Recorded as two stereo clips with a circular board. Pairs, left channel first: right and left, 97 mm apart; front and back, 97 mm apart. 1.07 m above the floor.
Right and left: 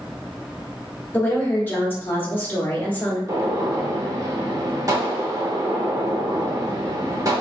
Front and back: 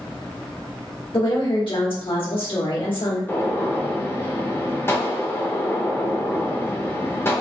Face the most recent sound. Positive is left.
turn(degrees=55)